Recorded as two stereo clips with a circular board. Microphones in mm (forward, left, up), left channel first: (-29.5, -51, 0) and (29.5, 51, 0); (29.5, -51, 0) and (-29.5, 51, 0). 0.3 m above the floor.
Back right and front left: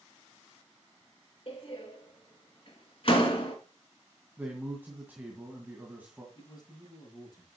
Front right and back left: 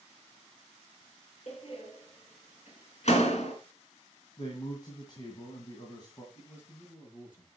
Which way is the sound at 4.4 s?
15° right.